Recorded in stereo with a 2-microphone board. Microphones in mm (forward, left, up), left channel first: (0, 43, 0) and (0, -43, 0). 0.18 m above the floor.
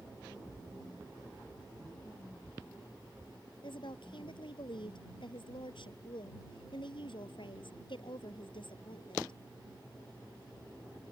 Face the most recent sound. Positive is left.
turn(degrees=70)  # may be behind; listen again after turning